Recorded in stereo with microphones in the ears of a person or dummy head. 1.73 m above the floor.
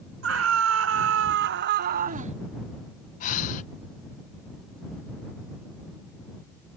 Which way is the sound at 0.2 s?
85° right.